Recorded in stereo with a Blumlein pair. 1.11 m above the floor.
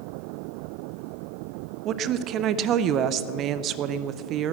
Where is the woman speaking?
35° right, 0.6 m.